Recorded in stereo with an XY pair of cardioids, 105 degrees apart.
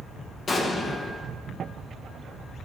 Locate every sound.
0.5 s an explosion: 40° left, 1.0 m